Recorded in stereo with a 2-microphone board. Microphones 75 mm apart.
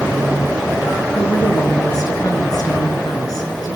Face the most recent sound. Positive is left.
turn(degrees=55)  # may be behind; listen again after turning